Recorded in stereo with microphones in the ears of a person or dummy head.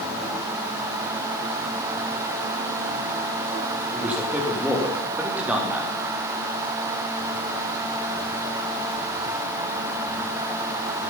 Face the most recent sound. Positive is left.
turn(degrees=-5)  # may be behind; listen again after turning